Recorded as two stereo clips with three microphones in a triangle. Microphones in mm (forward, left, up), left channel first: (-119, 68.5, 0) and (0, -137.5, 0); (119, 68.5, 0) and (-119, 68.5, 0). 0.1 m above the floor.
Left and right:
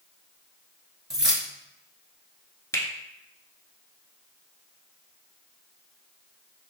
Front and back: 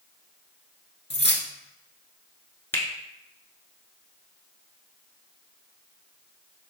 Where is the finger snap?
65° left, 0.9 m.